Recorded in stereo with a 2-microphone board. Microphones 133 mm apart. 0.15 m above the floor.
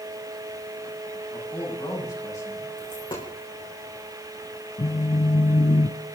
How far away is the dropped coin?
About 4.5 m.